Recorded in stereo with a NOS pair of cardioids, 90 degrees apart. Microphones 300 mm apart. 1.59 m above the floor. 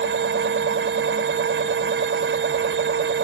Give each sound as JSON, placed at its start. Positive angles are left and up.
{"t": 0.0, "sound": "a machine running", "azimuth_deg": -40}